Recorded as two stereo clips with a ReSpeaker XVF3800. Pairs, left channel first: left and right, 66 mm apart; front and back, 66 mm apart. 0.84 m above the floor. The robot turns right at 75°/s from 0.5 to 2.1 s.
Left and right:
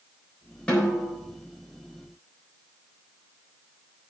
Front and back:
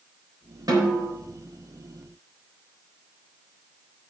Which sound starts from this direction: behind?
A snare drum, at 0.7 s.